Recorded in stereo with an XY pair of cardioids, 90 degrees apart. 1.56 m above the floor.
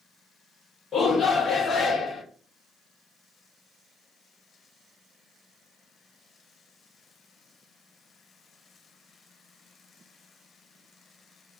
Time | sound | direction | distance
0.9 | a shout | 60° left | 1.0 m